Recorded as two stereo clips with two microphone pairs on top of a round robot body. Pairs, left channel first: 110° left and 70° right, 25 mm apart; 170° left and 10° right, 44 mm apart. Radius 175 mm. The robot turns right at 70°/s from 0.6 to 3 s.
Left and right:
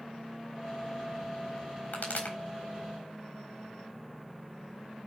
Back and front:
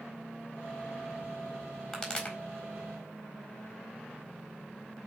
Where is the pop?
90° left, 4 m; by 2.4 s 120° left, 4 m.